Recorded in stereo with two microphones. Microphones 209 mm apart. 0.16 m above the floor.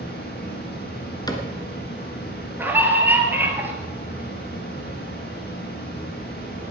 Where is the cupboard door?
20° left (ahead or behind), 1.6 m.